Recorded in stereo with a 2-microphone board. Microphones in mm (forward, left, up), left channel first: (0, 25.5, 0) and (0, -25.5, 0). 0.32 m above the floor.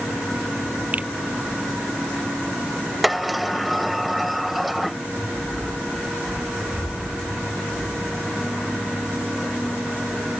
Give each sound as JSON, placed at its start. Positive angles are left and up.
{"t": 0.9, "sound": "a finger snap", "side_deg": -30}
{"t": 3.0, "sound": "a sliding door", "side_deg": 0}